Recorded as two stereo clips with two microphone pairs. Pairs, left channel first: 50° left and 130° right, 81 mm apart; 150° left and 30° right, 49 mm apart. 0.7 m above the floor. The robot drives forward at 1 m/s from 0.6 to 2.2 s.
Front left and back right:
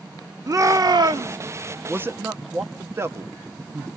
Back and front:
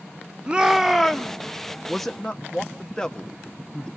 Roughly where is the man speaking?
Behind right.